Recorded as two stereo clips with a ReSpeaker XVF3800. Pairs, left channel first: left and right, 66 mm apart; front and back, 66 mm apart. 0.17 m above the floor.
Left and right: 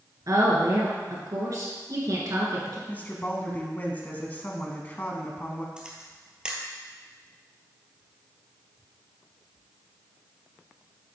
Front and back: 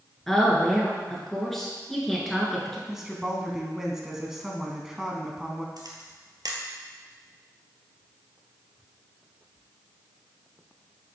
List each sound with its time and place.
0.3 s a woman speaking: 85° right, 2.5 m
2.9 s a woman speaking: 105° left, 1.1 m
5.8 s a camera shutter: 165° right, 1.3 m